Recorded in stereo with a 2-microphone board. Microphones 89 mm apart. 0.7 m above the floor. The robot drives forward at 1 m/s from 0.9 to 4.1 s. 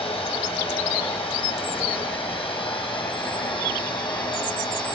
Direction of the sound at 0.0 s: 85° left.